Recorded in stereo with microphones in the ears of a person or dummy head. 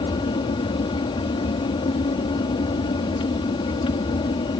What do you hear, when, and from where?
0.0 s an aircraft: 25° left (ahead or behind)